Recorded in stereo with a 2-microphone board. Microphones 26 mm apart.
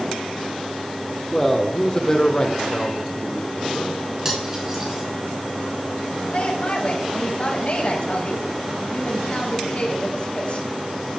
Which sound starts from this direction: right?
Cutlery clinking, at 4.2 s.